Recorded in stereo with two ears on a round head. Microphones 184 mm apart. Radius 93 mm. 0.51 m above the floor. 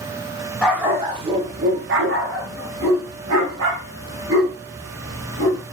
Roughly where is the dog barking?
Centre.